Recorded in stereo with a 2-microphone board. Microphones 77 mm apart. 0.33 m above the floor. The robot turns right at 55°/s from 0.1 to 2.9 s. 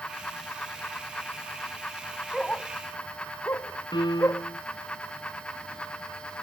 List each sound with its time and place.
2.3 s a dog barking: 5° left (ahead or behind); by 4.5 s 35° left (ahead or behind)
3.9 s a piano: 80° left